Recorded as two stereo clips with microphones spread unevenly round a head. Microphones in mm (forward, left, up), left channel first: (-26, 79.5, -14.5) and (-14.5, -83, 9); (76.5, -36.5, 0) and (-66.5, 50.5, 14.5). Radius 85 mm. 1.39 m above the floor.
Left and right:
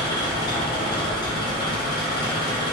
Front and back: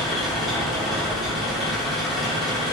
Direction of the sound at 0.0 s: 70° left.